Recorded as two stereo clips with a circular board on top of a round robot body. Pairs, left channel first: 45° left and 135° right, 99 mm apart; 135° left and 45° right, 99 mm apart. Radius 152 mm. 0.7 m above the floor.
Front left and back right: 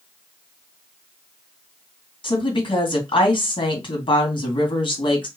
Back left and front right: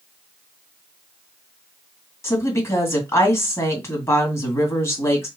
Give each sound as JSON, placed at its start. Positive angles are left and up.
{"t": 2.2, "sound": "a woman speaking", "azimuth_deg": 75, "distance_m": 2.5}